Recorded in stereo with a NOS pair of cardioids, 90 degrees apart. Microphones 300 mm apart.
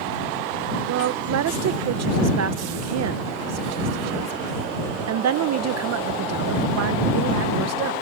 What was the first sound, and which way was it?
A woman speaking, 60° right.